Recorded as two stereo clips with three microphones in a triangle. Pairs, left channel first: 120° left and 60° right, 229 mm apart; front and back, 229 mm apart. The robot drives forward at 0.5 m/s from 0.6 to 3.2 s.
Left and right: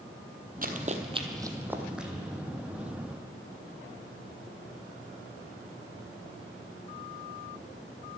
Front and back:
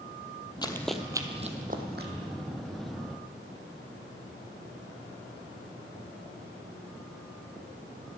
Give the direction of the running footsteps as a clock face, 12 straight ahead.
2 o'clock.